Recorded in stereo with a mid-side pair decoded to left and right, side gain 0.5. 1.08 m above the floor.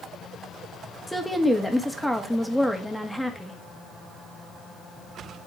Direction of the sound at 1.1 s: Straight ahead.